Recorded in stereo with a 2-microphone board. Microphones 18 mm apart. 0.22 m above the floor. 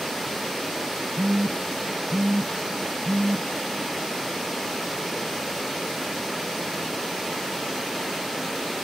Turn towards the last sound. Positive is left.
turn(degrees=-35)  # may be behind; listen again after turning